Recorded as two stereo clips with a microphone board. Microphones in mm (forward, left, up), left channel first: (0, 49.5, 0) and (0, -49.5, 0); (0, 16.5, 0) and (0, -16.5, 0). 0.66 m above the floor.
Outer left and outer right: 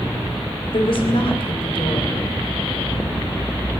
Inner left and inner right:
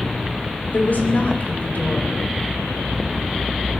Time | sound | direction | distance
0.7 | a woman speaking | 60° left (ahead or behind) | 3.5 m